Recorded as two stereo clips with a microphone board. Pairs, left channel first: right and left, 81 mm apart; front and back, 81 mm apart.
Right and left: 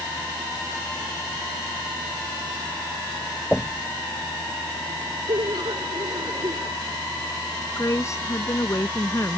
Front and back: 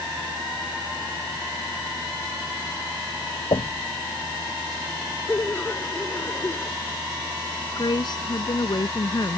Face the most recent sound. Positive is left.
turn(degrees=-35)